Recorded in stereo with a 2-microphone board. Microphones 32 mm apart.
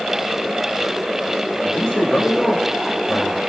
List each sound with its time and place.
1.6 s a man speaking: 25° left (ahead or behind), 4 m